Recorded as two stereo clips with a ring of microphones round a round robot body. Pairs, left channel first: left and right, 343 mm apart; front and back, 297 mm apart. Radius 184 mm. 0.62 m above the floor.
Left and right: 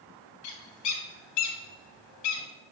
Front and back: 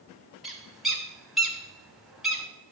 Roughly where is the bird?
Left.